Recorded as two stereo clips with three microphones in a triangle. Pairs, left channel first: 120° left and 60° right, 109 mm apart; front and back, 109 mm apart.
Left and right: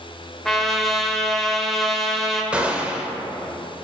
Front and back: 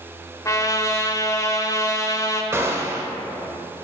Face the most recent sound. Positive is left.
turn(degrees=-135)